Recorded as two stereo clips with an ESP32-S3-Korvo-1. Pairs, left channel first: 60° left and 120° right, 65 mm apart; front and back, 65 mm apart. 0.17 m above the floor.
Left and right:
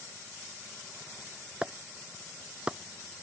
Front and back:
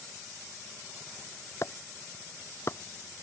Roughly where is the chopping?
Ahead right.